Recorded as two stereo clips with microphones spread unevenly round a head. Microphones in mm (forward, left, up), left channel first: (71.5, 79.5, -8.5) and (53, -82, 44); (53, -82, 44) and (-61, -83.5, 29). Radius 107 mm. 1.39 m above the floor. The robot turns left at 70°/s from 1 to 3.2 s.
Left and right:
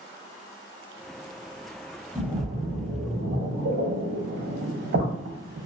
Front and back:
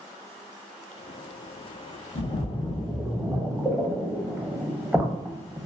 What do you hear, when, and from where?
2.1 s a splash: 25° right, 0.6 m; by 5.7 s 100° right, 0.6 m